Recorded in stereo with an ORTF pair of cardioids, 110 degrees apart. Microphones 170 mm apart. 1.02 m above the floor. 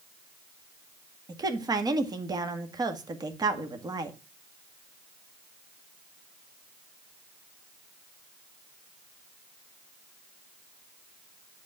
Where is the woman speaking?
25° right, 1.9 m.